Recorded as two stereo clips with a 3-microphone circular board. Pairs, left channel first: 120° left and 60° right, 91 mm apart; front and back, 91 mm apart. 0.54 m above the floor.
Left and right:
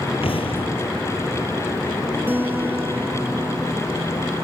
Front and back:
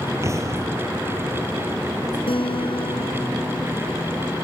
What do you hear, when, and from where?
0.2 s an explosion: 125° left
2.3 s a guitar: 10° left